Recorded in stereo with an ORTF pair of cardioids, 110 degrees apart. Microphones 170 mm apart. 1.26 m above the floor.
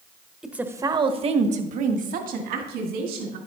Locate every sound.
0.4 s a woman speaking: 5° right, 1.1 m; by 3.4 s 75° right, 3 m